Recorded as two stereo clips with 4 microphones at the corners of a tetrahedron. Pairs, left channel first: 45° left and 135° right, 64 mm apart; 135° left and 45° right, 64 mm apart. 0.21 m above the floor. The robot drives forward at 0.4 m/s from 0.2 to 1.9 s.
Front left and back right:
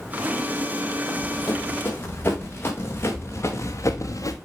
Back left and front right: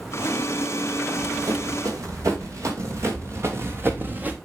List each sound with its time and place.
1.1 s running footsteps: 15° right, 5.5 m; by 4.4 s 20° left, 1.5 m